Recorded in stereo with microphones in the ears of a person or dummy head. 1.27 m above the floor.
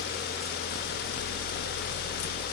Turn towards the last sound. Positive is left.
No sound to turn to.